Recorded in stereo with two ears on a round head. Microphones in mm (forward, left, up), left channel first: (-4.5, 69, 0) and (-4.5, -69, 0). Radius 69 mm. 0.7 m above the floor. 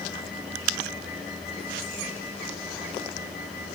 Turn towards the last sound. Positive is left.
No sound to turn to.